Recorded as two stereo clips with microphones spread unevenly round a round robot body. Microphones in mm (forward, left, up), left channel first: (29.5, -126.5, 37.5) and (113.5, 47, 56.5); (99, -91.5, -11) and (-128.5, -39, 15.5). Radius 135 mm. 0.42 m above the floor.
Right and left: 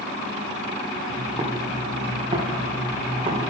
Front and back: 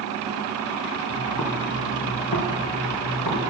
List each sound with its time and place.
1.1 s footsteps: straight ahead, 3 m